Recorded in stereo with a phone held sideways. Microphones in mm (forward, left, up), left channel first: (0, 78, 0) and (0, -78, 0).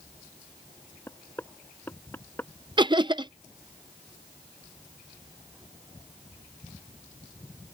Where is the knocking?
15° left (ahead or behind).